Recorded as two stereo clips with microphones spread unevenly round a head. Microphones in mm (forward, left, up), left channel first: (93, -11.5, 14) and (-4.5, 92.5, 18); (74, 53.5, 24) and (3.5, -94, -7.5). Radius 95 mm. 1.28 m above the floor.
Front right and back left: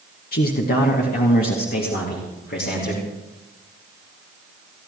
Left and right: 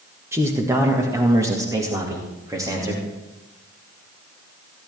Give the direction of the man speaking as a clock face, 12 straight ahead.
1 o'clock.